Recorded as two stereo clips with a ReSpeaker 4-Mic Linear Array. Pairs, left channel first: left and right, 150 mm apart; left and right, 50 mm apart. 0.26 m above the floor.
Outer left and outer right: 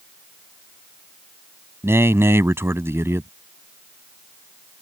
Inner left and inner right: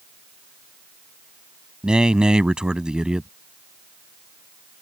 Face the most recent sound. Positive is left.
turn(degrees=-15)  # may be behind; listen again after turning